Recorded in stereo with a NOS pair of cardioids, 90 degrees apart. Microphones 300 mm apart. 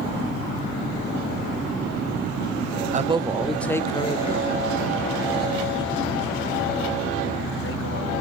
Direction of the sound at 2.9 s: 25° right.